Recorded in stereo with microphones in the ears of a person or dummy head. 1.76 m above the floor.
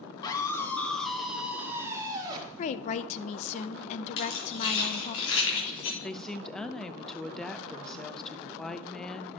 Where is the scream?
25° left (ahead or behind), 1.4 m; by 2.5 s 25° right (ahead or behind), 2.0 m.